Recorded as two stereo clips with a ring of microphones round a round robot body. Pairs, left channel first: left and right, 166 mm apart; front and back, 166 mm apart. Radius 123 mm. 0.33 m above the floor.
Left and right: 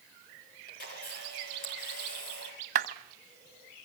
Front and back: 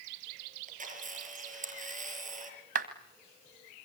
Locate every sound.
0.7 s a camera shutter: 140° left, 7 m
2.8 s a clap: 135° right, 1.6 m